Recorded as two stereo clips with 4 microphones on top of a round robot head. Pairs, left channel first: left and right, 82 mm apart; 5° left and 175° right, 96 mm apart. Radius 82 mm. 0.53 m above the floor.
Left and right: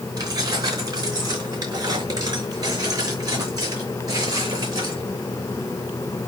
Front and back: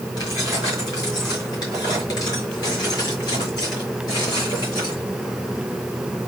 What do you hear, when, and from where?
0.2 s keys jangling: 50° right, 5 m; by 5.0 s 45° right, 7.5 m